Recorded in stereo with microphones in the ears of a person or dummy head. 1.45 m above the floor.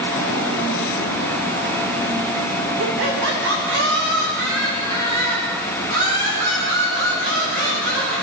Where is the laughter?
75° right (ahead or behind), 1.5 m; by 8.1 s 45° right (ahead or behind), 7.5 m.